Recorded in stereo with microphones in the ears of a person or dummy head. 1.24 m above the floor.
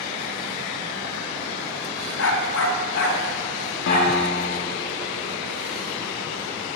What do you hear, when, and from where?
2.2 s a dog barking: 70° left (ahead or behind), 2.5 m; by 4.1 s 35° left (ahead or behind), 3 m
3.9 s a piano: 60° left (ahead or behind), 1.4 m